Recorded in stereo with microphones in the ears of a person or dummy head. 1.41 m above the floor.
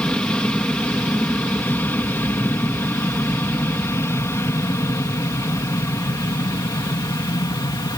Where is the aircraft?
5° left (ahead or behind); by 8.0 s 20° left (ahead or behind).